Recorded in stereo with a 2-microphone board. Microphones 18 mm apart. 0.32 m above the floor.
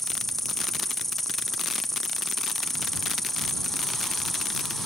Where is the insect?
15° left (ahead or behind).